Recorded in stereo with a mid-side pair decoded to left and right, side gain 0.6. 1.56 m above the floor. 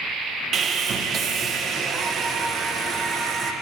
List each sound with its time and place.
0.5 s sawing: 40° right, 1.3 m